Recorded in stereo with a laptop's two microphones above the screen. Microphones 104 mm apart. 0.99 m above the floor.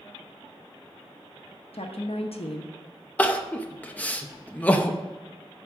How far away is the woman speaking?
About 1.0 m.